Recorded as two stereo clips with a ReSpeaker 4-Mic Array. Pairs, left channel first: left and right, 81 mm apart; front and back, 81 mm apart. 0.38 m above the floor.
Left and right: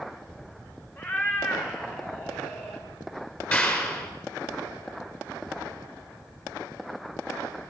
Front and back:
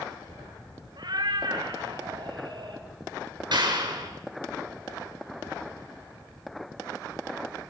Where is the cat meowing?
155° left, 2.5 m.